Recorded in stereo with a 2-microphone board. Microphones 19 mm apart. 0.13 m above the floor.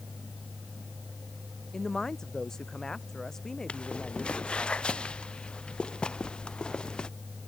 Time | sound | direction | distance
1.7 | a man speaking | 30° left (ahead or behind) | ?
3.7 | footsteps | 70° left (ahead or behind) | ?